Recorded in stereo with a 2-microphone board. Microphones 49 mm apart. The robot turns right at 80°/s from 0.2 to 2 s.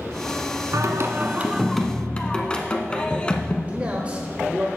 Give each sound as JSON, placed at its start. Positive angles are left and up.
{"t": 0.7, "sound": "singing", "azimuth_deg": -80, "distance_m": 0.9}
{"t": 3.7, "sound": "a man speaking", "side_deg": -25, "distance_m": 1.1}